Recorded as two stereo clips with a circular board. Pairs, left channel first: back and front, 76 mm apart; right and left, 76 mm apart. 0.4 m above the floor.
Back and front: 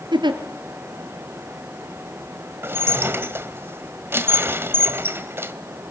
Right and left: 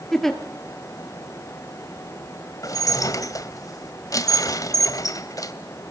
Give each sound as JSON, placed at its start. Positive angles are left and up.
{"t": 0.1, "sound": "a giggle", "azimuth_deg": -5, "distance_m": 2.5}
{"t": 2.6, "sound": "dishes clattering", "azimuth_deg": -55, "distance_m": 1.6}